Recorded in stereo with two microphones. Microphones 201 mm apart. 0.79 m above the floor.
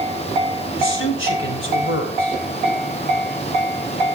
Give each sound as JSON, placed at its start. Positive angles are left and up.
{"t": 0.8, "sound": "a man speaking", "side_deg": 80, "distance_m": 4.0}